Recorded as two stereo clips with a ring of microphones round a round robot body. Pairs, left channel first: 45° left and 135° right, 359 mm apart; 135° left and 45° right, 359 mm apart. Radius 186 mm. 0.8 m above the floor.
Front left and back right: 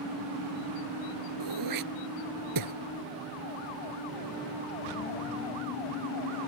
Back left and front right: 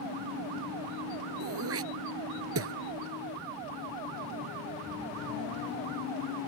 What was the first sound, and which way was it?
Throat clearing, 100° right.